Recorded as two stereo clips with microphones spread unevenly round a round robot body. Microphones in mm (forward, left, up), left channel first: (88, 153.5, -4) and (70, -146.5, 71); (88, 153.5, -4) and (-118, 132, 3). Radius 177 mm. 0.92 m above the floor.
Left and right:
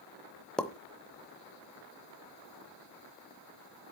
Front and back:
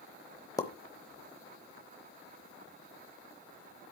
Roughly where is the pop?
Ahead right.